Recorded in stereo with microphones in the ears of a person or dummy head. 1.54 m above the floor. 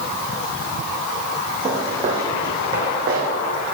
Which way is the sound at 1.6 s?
30° right (ahead or behind).